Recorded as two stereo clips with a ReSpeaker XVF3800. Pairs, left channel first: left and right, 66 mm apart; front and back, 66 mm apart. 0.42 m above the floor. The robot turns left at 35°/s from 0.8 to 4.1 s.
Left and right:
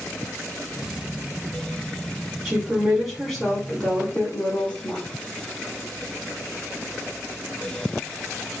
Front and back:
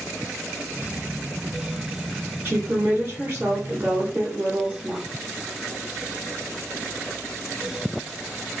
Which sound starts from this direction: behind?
A woman speaking, at 2.5 s.